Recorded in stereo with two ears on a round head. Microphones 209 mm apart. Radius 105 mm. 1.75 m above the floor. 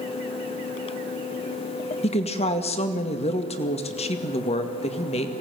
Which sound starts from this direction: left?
A woman speaking, at 2.0 s.